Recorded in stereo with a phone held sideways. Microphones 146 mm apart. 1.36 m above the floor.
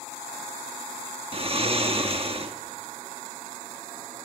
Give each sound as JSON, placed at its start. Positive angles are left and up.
{"t": 1.3, "sound": "snoring", "side_deg": -40, "distance_m": 1.4}